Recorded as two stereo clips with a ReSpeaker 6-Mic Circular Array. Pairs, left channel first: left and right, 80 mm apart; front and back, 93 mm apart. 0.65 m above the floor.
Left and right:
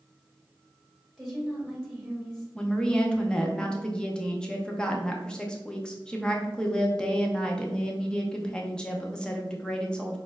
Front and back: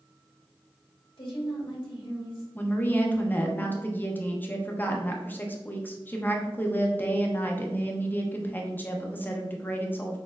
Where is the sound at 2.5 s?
30° left, 0.7 m.